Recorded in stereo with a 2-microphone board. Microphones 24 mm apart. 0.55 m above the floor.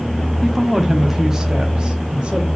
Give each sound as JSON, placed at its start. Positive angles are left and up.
{"t": 0.4, "sound": "a woman speaking", "side_deg": 10, "distance_m": 0.8}